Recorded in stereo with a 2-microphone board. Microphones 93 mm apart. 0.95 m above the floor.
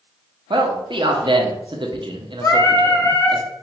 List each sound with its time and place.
0.5 s a man speaking: 60° right (ahead or behind), 0.8 m
2.4 s singing: 30° left (ahead or behind), 0.7 m